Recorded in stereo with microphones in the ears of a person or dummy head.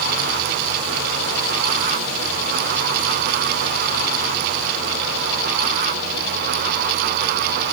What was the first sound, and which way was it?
Only background noise.